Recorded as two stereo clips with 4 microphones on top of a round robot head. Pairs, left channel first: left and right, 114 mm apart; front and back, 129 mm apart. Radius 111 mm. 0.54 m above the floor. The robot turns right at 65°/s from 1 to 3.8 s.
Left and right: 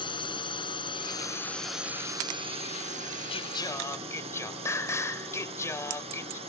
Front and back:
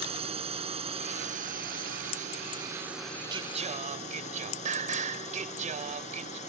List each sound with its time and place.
0.0 s a drone: 135° left; by 6.5 s 45° right
3.3 s singing: 125° left; by 6.4 s 155° left